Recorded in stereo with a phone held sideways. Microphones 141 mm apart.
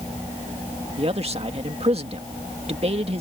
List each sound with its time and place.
1.0 s a man speaking: 45° right (ahead or behind)